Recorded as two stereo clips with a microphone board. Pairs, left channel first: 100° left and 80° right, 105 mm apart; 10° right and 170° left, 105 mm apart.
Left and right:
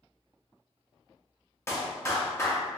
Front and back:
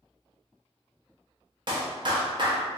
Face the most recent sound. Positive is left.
turn(degrees=150)